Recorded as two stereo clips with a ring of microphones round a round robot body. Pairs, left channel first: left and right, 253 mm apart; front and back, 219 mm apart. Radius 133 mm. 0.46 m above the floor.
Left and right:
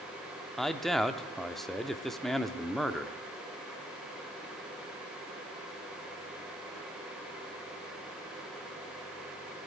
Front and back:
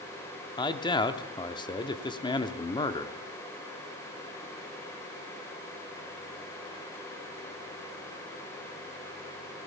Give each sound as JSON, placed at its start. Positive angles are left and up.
{"t": 0.6, "sound": "a man speaking", "azimuth_deg": 0, "distance_m": 0.7}